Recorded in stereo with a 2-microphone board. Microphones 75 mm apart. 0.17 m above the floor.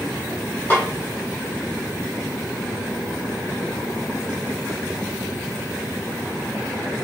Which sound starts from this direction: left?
A snare drum, at 0.7 s.